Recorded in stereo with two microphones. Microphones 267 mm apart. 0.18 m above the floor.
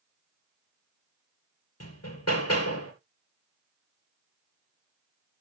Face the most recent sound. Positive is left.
turn(degrees=65)  # may be behind; listen again after turning